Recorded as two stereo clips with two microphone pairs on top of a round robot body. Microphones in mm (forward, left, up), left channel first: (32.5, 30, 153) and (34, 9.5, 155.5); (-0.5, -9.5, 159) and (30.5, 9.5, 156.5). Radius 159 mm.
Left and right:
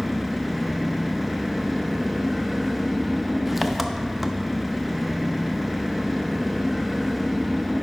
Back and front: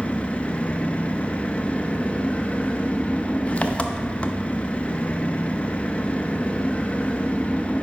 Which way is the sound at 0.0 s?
175° right.